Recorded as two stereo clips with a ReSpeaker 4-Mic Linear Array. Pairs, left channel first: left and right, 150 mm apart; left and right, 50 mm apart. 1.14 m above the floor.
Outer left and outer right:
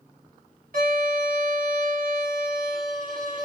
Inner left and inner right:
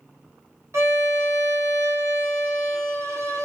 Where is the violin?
65° right (ahead or behind), 1.1 m.